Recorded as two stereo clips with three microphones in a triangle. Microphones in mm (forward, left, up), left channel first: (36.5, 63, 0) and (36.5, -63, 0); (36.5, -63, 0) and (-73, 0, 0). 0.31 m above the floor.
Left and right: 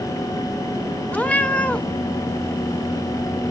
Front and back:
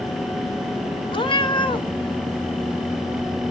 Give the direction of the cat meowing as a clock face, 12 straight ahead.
12 o'clock.